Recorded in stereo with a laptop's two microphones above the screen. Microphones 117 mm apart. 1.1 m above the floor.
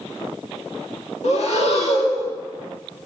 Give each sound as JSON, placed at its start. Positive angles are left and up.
{"t": 1.2, "sound": "breathing", "side_deg": 65, "distance_m": 1.9}